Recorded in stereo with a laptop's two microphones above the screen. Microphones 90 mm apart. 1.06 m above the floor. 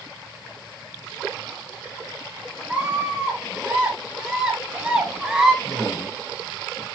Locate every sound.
2.7 s a scream: 10° right (ahead or behind), 8 m
5.6 s a woman speaking: 40° left (ahead or behind), 5.5 m